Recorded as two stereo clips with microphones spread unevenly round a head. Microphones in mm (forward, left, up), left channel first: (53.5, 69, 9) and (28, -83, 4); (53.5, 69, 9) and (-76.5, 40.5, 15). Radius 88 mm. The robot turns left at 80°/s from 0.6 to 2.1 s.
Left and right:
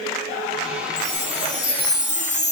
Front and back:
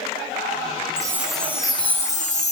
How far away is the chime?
About 3 m.